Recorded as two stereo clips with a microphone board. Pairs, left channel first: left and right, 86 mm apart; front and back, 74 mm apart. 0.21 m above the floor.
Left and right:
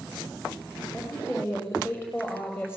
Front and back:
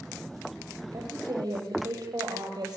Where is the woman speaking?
150° left, 8.5 m; by 2.8 s 155° left, 7.5 m.